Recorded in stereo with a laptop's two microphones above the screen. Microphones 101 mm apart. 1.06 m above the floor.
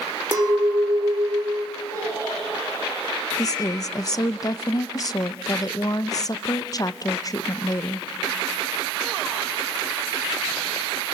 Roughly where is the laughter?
Left.